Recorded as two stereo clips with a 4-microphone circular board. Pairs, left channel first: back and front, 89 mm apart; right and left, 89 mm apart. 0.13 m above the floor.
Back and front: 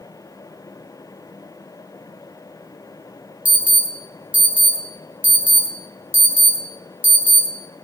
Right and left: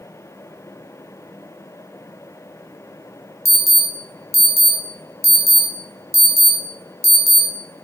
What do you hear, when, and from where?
3.5 s an alarm: 60° left, 1.0 m